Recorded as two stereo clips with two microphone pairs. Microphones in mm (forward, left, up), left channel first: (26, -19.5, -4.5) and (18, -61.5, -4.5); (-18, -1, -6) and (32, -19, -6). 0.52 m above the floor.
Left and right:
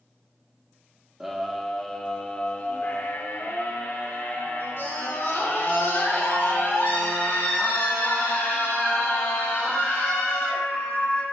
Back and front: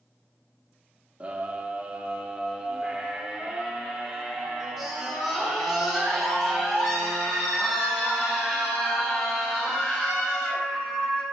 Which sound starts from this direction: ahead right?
A scream, at 1.2 s.